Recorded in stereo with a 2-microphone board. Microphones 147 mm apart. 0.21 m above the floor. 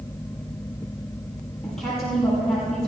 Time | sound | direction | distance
1.6 | a woman speaking | 5° left (ahead or behind) | 7.5 m